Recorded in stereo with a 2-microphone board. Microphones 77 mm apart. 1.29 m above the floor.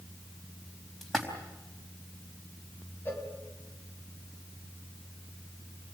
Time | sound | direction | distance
1.0 | a splash | 5° left (ahead or behind) | 4 m
3.0 | a cowbell | 30° left (ahead or behind) | 3.5 m